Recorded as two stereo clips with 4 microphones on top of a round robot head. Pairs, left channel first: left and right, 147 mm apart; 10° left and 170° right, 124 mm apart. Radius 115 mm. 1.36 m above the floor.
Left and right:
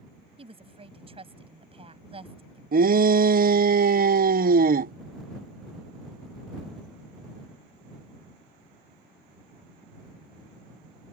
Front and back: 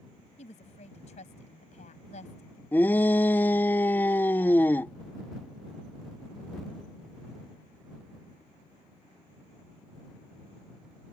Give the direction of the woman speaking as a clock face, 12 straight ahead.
1 o'clock.